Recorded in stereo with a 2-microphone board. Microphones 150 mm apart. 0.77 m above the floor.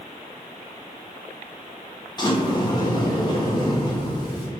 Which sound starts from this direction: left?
A sliding door, at 2.2 s.